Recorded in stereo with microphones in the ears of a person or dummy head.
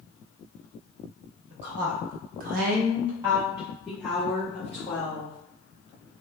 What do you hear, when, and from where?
1.5 s a woman speaking: 45° right (ahead or behind), 1.0 m; by 5.4 s 15° left (ahead or behind), 1.6 m